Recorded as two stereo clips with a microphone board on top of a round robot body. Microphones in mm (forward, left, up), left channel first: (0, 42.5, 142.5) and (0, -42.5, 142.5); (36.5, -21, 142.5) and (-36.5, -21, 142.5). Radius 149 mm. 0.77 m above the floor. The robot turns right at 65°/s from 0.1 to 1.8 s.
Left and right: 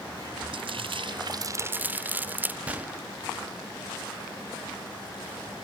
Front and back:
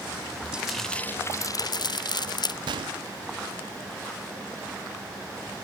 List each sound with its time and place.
0.5 s frying: 100° right; by 2.6 s 20° right
2.7 s a gunshot: 165° right